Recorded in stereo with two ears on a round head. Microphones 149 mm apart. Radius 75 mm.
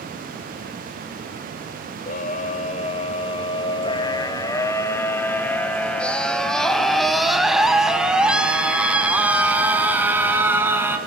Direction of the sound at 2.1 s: 50° left (ahead or behind).